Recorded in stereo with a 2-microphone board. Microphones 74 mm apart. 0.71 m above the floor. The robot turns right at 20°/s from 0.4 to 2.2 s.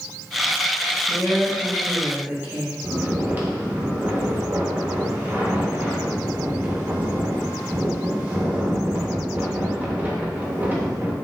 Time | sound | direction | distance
1.1 | a woman speaking | 5° right (ahead or behind) | 0.8 m
2.8 | snoring | 20° right (ahead or behind) | 0.6 m